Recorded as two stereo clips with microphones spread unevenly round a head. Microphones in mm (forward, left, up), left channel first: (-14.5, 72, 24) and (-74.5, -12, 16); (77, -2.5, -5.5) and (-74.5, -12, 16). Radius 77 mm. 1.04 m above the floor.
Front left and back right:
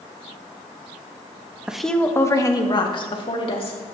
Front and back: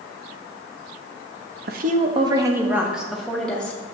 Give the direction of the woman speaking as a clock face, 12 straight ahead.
7 o'clock.